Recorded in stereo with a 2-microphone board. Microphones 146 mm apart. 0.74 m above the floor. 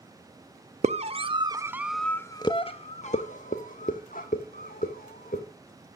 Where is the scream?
50° right (ahead or behind), 1.0 m; by 5.4 s 75° left (ahead or behind), 2.5 m.